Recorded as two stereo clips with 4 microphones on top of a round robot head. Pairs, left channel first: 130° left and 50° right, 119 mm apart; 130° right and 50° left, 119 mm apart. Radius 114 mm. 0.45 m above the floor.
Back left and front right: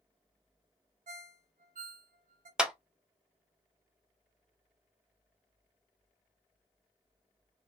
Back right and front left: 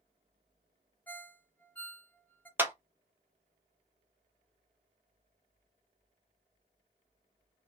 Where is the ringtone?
55° right, 0.7 m.